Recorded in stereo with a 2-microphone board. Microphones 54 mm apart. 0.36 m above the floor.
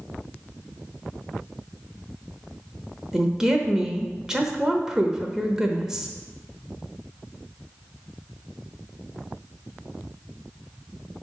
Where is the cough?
I don't hear a cough.